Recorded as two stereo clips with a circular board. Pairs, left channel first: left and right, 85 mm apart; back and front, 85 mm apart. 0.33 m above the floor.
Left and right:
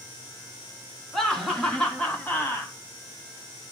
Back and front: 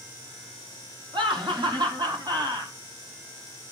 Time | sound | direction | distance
1.1 | laughter | 5° left | 3.5 m